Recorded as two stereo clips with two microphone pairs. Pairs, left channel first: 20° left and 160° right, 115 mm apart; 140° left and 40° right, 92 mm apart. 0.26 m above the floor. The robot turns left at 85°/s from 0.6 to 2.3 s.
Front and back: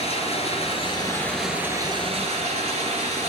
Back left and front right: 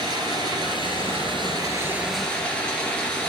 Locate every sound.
0.0 s running water: straight ahead, 2.5 m; by 3.3 s 145° right, 2.5 m